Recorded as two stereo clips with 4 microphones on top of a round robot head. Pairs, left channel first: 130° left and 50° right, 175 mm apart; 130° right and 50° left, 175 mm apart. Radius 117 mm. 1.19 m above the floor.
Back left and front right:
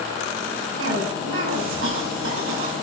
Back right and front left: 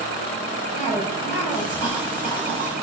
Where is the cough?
35° right, 7.5 m.